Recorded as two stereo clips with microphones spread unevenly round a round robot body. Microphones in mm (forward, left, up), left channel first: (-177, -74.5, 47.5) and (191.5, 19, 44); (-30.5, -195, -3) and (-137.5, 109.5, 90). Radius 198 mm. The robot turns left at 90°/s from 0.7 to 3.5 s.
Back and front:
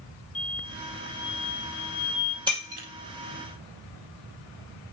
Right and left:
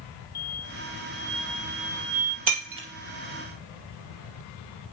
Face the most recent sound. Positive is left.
turn(degrees=0)